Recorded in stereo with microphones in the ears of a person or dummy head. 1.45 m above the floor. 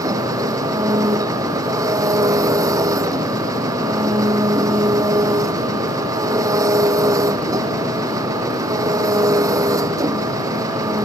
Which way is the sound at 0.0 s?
20° right (ahead or behind).